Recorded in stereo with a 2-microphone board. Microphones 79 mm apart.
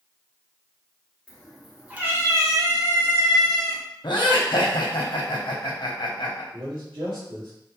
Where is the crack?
I don't hear a crack.